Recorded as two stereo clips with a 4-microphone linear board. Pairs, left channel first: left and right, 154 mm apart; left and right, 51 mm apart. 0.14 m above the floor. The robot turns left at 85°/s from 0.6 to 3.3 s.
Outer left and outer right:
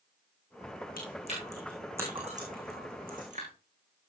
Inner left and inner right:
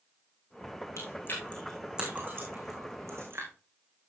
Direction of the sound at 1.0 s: 70° left (ahead or behind).